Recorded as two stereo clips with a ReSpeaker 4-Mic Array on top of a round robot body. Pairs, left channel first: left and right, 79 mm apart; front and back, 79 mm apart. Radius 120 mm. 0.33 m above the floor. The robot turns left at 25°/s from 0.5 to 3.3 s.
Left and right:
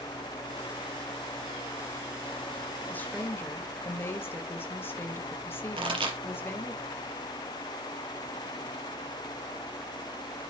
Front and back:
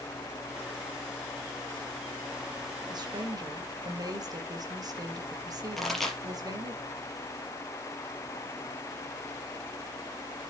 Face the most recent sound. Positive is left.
turn(degrees=-90)